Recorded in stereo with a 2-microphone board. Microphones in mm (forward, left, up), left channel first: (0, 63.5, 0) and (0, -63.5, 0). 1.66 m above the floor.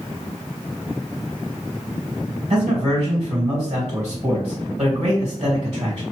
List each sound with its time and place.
2.5 s a man speaking: 50° right (ahead or behind), 1.7 m